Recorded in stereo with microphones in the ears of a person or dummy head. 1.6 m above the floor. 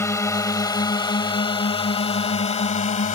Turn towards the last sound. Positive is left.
turn(degrees=40)  # may be behind; listen again after turning